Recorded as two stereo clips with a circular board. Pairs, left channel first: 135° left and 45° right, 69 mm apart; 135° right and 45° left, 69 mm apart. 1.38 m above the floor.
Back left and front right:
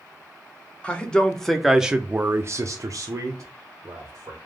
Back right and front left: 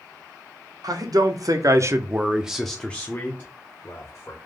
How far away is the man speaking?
About 0.9 m.